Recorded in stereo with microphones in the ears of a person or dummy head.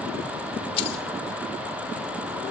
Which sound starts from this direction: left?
Keys jangling, at 0.8 s.